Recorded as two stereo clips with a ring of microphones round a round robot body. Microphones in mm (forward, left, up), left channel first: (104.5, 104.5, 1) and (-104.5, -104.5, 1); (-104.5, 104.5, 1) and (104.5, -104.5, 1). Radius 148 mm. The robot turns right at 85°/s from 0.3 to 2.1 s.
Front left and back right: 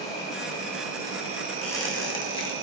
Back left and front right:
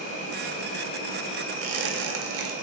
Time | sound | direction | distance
0.0 | an insect | 90° left | 1.4 m
1.6 | a squeak | 45° right | 0.7 m